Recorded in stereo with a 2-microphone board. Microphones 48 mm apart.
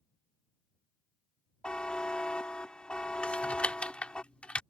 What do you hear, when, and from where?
1.6 s a buzzer: 20° left (ahead or behind)
3.2 s typing on a keyboard: 25° left (ahead or behind)